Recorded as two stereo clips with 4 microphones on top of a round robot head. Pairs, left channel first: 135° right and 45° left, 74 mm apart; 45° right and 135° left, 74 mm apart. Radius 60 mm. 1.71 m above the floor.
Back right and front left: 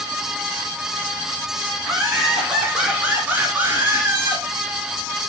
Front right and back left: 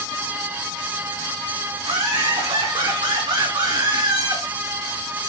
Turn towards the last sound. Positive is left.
turn(degrees=100)